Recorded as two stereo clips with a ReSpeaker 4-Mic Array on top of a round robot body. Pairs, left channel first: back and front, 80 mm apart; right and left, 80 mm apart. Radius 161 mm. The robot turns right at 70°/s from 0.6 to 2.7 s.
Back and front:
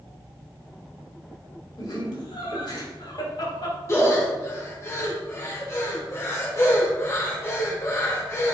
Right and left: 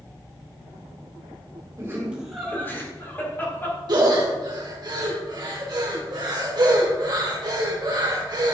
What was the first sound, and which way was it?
Laughter, 140° left.